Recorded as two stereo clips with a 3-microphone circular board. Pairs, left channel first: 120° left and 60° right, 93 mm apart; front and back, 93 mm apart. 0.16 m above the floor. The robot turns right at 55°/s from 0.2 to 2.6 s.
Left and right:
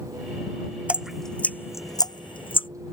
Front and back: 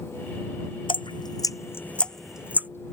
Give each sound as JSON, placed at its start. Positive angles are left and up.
{"t": 0.9, "sound": "dripping", "azimuth_deg": 15}